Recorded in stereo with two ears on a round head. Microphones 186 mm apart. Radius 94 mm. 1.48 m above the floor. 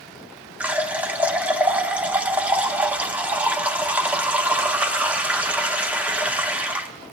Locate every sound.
0.6 s a running tap: 5° right (ahead or behind), 0.6 m